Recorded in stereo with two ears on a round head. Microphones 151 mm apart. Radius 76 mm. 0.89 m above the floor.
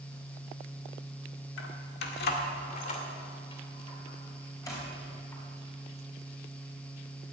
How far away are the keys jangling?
About 1.8 m.